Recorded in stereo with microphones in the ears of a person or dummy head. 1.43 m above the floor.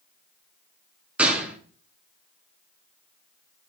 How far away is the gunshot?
About 1.1 m.